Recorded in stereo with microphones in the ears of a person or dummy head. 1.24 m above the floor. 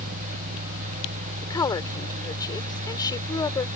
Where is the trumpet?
I don't hear a trumpet.